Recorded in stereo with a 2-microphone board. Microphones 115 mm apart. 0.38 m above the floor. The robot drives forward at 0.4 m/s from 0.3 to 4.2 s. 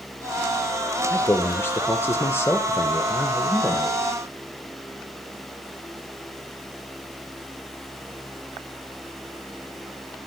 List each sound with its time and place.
1.1 s a man speaking: 20° left (ahead or behind), 1.1 m; by 4.0 s 15° left (ahead or behind), 1.4 m